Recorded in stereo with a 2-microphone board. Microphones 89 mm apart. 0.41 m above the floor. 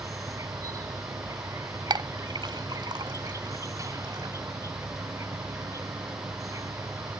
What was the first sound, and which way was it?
An insect, 40° right (ahead or behind).